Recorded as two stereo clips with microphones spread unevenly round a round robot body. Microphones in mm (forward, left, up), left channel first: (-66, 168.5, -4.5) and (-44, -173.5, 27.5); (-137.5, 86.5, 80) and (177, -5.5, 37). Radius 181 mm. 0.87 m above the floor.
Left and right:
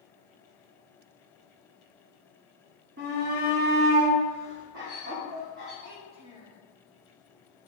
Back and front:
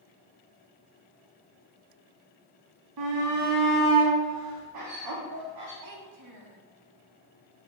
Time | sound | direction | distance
3.0 | a shout | 25° right | 1.5 m
5.8 | a child speaking | 35° right | 1.4 m